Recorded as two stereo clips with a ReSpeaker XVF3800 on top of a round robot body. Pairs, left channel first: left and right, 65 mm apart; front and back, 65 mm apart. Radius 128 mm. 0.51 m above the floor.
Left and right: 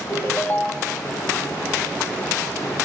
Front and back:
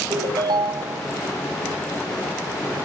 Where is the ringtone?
160° left, 1.6 m.